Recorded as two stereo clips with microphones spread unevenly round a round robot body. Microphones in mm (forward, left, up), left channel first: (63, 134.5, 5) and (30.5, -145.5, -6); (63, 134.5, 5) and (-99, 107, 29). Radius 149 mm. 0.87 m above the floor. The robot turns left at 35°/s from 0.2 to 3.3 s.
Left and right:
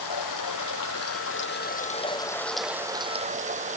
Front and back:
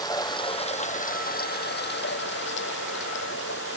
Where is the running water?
75° left; by 3.8 s 30° right.